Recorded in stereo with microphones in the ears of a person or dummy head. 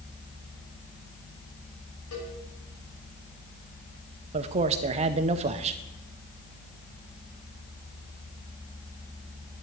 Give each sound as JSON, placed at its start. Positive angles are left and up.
{"t": 2.1, "sound": "a cowbell", "side_deg": 85, "distance_m": 6.5}
{"t": 4.3, "sound": "a man speaking", "side_deg": -35, "distance_m": 0.8}